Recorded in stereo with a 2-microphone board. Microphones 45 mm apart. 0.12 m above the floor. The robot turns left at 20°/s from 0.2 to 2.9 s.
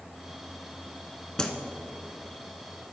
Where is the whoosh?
20° left (ahead or behind), 0.6 m.